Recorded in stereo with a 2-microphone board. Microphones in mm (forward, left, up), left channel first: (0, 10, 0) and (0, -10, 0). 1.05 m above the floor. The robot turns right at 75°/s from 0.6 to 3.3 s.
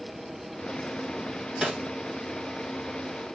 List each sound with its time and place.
1.6 s a snare drum: 50° right (ahead or behind), 1.8 m; by 1.8 s 35° right (ahead or behind), 1.8 m